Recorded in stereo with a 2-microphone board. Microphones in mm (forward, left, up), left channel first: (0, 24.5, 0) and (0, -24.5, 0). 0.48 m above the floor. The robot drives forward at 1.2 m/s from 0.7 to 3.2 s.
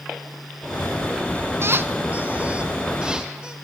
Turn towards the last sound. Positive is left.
turn(degrees=-15)  # may be behind; listen again after turning